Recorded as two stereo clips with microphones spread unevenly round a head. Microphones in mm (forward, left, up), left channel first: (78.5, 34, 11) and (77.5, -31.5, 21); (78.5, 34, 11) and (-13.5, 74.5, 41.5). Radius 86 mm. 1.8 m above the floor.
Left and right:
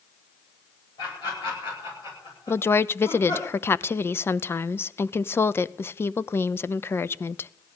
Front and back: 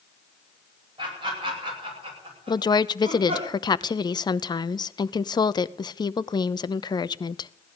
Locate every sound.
1.0 s laughter: 120° left, 10 m; by 3.5 s 130° left, 9 m
2.5 s a woman speaking: 30° left, 0.7 m